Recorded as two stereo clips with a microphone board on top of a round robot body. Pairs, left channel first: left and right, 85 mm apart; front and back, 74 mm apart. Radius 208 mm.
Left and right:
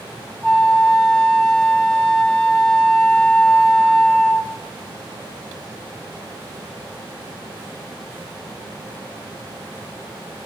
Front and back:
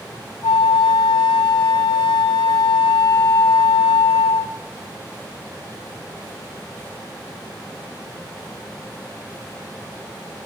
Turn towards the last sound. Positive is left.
turn(degrees=10)